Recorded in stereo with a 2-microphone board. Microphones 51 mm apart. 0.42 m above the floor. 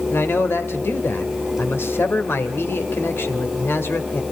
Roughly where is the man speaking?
Left.